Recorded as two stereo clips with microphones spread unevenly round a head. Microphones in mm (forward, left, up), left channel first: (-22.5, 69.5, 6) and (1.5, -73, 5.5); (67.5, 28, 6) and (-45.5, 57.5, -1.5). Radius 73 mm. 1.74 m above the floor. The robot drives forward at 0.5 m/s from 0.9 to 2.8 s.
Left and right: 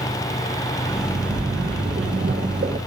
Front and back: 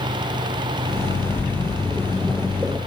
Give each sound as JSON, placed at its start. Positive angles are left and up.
{"t": 1.1, "sound": "a splash", "azimuth_deg": -65, "distance_m": 1.2}